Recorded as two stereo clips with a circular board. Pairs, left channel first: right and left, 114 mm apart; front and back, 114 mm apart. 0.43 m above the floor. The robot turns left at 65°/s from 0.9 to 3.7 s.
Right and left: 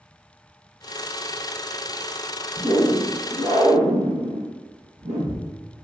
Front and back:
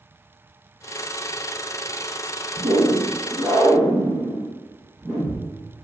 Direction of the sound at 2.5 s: 175° right.